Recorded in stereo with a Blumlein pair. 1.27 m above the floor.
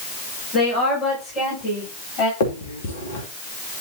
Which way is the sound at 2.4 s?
60° left.